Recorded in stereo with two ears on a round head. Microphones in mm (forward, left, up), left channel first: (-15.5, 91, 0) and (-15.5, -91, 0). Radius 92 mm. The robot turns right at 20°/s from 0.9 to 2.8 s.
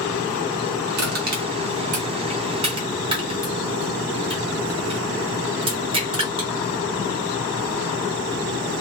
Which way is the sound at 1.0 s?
50° right (ahead or behind).